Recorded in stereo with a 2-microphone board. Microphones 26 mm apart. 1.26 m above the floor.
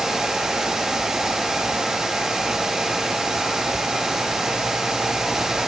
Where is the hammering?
I don't hear hammering.